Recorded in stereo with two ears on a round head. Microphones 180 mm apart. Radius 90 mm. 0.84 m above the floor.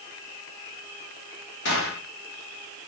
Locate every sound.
1.6 s a gunshot: 60° left (ahead or behind), 4 m